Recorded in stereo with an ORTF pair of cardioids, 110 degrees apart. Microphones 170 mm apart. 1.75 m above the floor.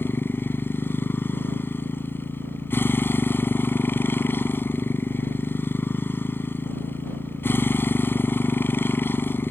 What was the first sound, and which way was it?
A motorcycle, 15° left.